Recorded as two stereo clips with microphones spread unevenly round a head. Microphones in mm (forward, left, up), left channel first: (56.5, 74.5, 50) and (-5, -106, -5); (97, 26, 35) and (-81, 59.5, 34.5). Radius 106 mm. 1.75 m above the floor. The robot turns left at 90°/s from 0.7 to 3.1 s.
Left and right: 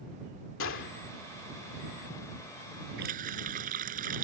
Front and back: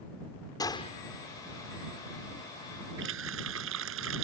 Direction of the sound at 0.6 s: 60° left.